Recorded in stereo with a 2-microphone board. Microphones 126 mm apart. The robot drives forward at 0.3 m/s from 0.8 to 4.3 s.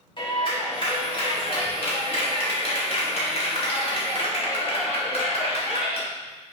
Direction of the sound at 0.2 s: 45° left (ahead or behind).